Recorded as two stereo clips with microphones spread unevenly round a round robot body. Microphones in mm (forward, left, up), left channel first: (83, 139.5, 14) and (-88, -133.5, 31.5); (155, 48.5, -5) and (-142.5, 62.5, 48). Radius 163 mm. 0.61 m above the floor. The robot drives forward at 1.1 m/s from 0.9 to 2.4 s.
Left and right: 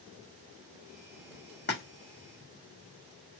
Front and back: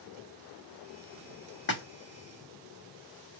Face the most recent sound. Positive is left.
turn(degrees=45)